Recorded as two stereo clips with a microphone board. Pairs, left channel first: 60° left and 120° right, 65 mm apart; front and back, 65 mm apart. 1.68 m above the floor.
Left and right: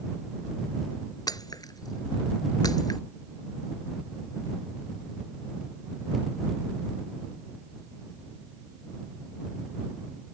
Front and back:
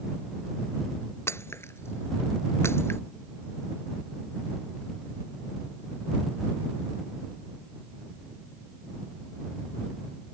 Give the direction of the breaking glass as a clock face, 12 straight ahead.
10 o'clock.